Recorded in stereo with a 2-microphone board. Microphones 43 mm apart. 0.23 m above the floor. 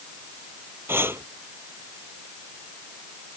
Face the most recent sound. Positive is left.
turn(degrees=-70)  # may be behind; listen again after turning